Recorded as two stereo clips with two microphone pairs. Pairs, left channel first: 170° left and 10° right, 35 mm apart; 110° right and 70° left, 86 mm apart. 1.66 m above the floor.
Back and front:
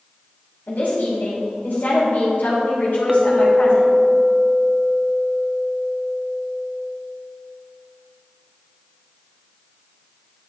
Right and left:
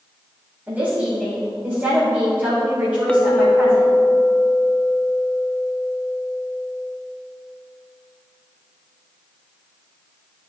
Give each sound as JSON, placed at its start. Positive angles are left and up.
{"t": 0.7, "sound": "a woman speaking", "azimuth_deg": 145, "distance_m": 3.0}
{"t": 3.1, "sound": "a clink", "azimuth_deg": -60, "distance_m": 0.6}